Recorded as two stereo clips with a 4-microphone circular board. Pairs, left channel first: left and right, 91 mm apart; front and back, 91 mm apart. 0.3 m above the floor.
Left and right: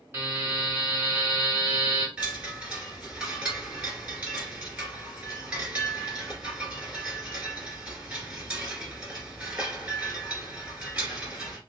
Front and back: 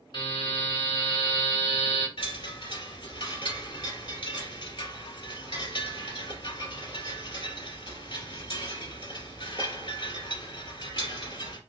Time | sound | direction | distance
0.1 | a buzzer | 25° right | 2 m
2.2 | a chime | 15° right | 2 m